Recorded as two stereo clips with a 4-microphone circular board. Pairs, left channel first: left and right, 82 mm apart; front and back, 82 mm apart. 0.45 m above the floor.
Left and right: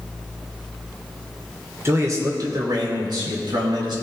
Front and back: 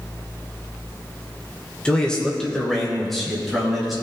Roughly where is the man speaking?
Right.